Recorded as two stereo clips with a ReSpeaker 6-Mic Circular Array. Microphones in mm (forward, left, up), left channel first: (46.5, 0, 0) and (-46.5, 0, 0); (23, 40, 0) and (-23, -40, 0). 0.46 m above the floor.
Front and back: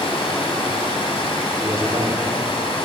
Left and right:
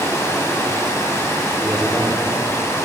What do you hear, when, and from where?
0.0 s running water: straight ahead, 1.3 m
1.6 s a man speaking: 150° left, 1.0 m